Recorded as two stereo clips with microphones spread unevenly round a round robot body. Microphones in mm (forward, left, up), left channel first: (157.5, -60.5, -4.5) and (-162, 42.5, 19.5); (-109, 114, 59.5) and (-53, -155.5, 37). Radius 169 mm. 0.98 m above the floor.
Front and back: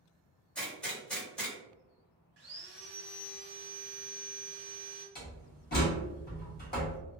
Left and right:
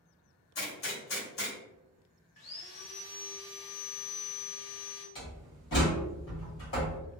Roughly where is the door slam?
Ahead left.